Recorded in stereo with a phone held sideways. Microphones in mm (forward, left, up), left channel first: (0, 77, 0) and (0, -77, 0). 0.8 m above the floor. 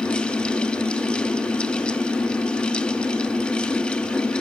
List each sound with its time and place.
0.0 s a fan: 5° left (ahead or behind), 1.0 m